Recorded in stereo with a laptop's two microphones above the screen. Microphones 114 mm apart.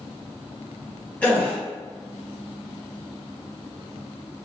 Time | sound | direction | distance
1.2 | a gasp | 10° left (ahead or behind) | 0.6 m